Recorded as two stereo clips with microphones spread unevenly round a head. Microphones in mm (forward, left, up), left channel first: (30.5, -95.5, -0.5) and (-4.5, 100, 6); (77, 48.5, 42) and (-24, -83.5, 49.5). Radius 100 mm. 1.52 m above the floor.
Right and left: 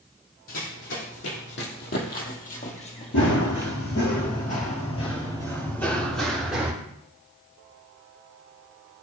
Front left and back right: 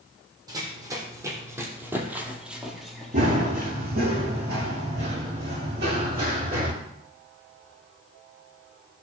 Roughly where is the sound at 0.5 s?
Ahead right.